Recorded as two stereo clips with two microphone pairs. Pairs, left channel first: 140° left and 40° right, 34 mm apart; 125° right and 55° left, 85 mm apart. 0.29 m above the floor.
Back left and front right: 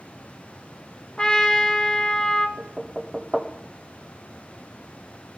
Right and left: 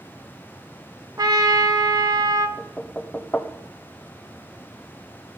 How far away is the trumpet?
About 1.0 m.